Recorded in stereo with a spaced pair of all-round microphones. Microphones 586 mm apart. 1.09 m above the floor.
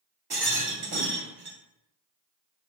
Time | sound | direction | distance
0.3 | a rattle | 40° right (ahead or behind) | 1.1 m